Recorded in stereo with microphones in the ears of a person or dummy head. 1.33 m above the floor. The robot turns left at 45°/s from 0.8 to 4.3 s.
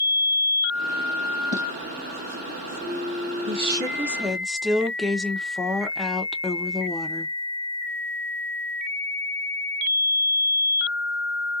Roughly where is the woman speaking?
Behind right.